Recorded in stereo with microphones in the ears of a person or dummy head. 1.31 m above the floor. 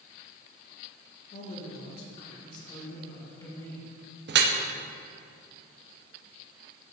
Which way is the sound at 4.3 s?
55° right (ahead or behind).